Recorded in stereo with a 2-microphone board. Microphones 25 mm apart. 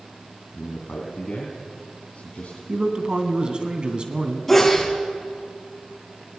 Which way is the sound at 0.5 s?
45° left (ahead or behind).